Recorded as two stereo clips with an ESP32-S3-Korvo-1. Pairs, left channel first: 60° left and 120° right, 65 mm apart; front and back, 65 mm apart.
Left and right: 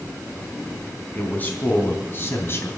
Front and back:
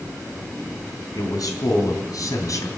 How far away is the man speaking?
About 4 m.